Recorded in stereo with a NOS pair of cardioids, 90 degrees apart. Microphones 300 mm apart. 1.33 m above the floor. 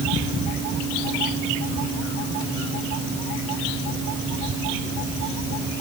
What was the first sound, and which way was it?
Only background noise.